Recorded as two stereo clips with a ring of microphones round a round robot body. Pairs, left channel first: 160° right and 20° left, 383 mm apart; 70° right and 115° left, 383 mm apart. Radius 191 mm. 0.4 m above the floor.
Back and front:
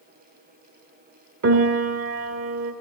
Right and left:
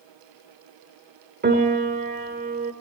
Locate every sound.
1.4 s a piano: 60° left, 1.5 m